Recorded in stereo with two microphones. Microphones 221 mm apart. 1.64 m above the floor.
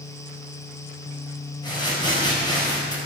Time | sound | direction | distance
1.6 | crumpling | 20° left (ahead or behind) | 4.5 m